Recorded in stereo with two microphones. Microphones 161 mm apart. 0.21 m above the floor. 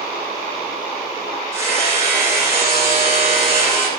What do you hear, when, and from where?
1.5 s hammering: 20° right (ahead or behind), 7 m